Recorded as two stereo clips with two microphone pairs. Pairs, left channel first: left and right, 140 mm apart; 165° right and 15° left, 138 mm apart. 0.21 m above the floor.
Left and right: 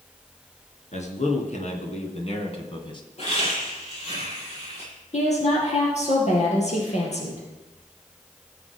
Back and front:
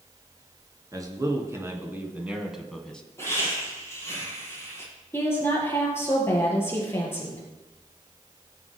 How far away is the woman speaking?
About 4 m.